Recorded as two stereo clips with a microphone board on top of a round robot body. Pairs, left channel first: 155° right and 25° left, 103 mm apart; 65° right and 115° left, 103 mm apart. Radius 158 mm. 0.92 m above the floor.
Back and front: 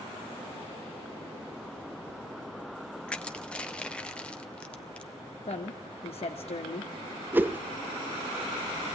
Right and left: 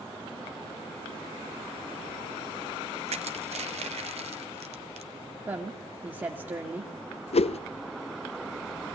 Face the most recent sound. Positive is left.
turn(degrees=-50)